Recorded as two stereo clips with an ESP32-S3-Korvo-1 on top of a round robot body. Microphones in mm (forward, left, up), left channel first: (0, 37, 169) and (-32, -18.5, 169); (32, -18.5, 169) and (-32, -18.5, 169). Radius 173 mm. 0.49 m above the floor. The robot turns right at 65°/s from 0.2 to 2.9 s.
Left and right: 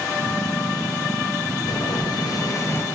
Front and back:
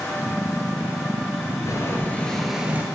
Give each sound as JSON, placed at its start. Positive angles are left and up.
{"t": 1.7, "sound": "boiling", "azimuth_deg": 40, "distance_m": 2.0}